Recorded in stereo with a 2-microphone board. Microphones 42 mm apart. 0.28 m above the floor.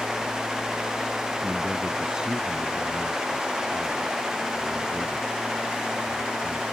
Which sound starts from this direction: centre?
A man speaking, at 1.4 s.